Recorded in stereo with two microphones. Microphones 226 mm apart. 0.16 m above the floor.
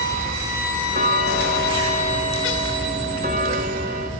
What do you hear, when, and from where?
0.9 s ticking: 40° right (ahead or behind), 1.4 m